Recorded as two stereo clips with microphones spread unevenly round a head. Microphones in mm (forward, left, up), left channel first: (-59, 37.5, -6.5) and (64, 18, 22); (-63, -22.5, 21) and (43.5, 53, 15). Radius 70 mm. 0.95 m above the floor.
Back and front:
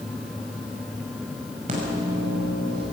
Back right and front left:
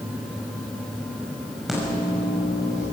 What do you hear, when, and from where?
1.7 s a microwave: 50° right, 6 m